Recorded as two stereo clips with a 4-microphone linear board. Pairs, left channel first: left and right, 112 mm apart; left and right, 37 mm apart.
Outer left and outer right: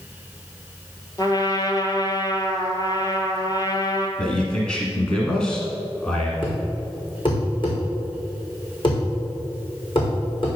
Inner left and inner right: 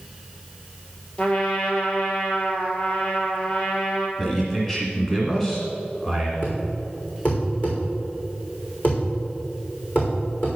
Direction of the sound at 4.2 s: 10° left (ahead or behind).